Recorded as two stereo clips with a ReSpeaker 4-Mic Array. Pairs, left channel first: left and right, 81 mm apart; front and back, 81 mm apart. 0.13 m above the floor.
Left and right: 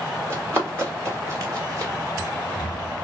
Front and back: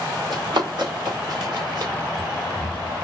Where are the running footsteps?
150° right, 2.5 m; by 1.9 s 140° right, 3 m.